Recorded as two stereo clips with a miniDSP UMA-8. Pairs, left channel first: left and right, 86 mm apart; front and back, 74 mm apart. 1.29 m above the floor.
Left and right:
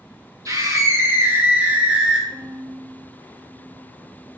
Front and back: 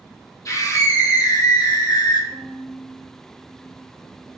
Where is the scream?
40° right, 2 m; by 2.2 s 5° right, 2 m.